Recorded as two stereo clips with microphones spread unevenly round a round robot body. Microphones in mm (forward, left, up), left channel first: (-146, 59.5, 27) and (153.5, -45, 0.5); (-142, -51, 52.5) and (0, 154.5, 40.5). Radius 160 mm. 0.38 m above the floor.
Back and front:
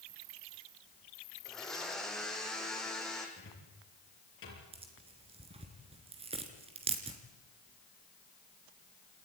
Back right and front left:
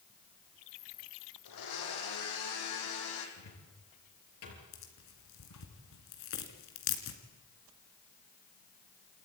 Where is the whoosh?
No whoosh in this recording.